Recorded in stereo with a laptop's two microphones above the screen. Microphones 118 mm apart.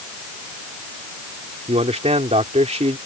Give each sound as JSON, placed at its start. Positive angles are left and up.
{"t": 1.7, "sound": "a man speaking", "side_deg": -65}